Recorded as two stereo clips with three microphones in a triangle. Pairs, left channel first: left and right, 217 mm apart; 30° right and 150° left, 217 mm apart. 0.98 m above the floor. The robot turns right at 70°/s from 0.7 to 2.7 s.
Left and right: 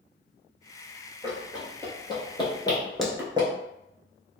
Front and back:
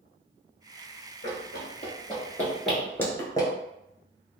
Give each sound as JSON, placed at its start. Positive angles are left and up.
{"t": 1.2, "sound": "running footsteps", "azimuth_deg": -25, "distance_m": 1.9}